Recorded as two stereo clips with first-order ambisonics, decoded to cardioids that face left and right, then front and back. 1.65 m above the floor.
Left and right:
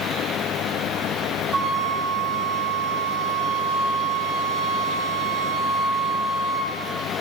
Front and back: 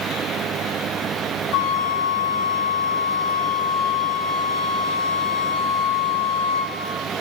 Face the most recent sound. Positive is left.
turn(degrees=-20)